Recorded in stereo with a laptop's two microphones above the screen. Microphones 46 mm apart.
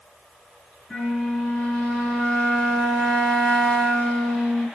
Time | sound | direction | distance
0.9 | a flute | 10° left (ahead or behind) | 1.5 m